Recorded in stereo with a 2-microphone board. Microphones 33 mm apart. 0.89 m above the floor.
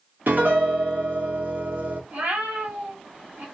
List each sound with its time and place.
0.3 s a piano: 70° right (ahead or behind), 1.2 m
2.1 s a cat meowing: 70° right (ahead or behind), 1.5 m